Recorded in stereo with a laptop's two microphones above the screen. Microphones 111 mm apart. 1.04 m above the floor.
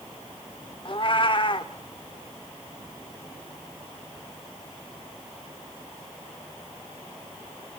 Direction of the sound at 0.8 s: 45° left (ahead or behind).